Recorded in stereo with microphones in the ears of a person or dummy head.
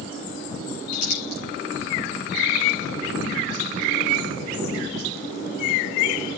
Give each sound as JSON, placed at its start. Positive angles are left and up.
{"t": 0.9, "sound": "crumpling", "side_deg": 55, "distance_m": 6.5}